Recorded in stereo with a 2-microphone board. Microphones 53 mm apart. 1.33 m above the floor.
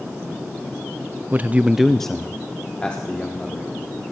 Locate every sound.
1.3 s a man speaking: 30° right (ahead or behind), 0.6 m; by 4.0 s 25° left (ahead or behind), 3 m